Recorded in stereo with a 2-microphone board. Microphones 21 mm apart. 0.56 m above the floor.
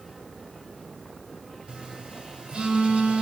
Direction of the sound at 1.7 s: 55° right (ahead or behind).